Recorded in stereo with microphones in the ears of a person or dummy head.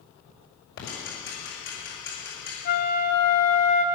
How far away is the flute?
About 1.1 m.